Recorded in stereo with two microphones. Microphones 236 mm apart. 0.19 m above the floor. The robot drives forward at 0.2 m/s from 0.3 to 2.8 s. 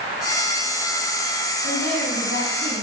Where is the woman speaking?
50° right (ahead or behind), 6.5 m; by 2.8 s 45° right (ahead or behind), 7 m.